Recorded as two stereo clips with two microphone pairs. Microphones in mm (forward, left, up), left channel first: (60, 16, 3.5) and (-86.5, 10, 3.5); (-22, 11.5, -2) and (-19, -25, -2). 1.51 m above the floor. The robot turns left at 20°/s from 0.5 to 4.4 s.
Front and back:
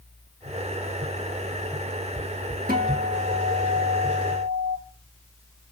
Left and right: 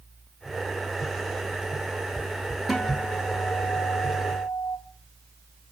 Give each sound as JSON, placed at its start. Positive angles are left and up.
{"t": 2.7, "sound": "a guitar", "azimuth_deg": -175, "distance_m": 1.8}